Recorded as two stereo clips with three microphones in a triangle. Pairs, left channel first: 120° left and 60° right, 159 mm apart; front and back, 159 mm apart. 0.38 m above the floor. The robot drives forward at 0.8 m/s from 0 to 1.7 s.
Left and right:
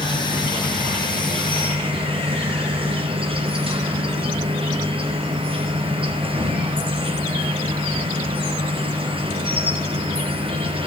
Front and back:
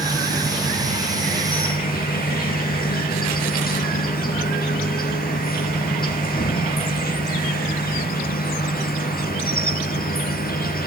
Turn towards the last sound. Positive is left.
turn(degrees=-5)